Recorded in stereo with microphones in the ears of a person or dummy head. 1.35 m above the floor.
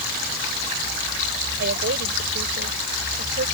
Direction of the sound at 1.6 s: 55° right (ahead or behind).